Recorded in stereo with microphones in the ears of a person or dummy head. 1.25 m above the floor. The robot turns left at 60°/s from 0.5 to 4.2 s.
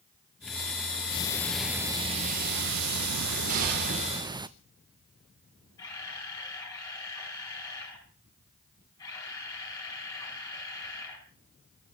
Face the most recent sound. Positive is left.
turn(degrees=20)  # may be behind; listen again after turning